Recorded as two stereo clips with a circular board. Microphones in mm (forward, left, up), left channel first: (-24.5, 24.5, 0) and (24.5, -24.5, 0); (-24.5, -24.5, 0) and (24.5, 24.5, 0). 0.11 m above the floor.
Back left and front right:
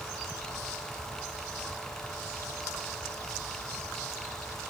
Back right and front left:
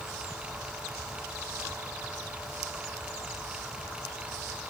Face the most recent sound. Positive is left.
No sound to turn to.